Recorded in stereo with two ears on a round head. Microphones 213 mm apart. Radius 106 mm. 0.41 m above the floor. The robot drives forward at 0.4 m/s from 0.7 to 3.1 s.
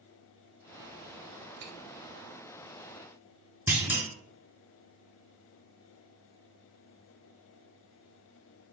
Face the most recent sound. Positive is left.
turn(degrees=-10)  # may be behind; listen again after turning